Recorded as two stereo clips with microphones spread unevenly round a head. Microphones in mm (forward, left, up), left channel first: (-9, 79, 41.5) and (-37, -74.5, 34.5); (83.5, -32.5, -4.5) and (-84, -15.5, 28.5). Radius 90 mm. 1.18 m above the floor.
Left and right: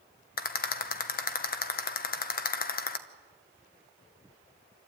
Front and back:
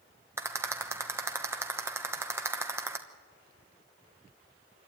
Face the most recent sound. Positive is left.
turn(degrees=95)